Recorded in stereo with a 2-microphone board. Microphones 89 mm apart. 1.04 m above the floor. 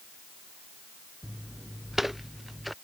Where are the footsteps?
5° right (ahead or behind); by 2.7 s centre (ahead or behind).